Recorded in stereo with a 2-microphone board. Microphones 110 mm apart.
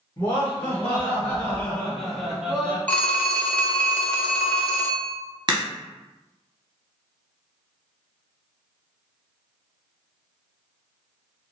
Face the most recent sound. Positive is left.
turn(degrees=-45)  # may be behind; listen again after turning